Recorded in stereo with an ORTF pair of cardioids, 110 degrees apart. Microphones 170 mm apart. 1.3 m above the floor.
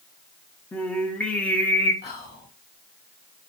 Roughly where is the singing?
Ahead.